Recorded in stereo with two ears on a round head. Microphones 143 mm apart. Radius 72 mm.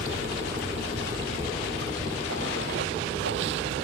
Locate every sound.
0.0 s running water: 90° right